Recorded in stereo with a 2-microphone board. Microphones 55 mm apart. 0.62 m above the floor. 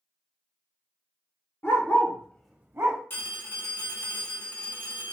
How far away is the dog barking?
About 1.5 m.